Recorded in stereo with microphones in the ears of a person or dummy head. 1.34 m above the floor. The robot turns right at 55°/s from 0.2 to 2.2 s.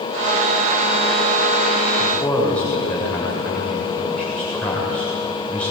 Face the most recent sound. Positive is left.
turn(degrees=10)  # may be behind; listen again after turning